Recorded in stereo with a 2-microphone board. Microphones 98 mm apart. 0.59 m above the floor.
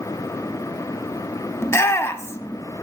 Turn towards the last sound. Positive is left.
turn(degrees=25)  # may be behind; listen again after turning